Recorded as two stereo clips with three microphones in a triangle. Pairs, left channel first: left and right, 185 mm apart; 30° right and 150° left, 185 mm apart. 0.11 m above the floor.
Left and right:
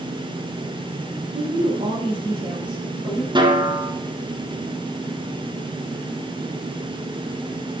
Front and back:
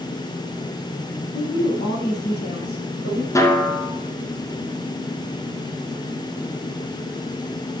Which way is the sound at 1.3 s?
40° right.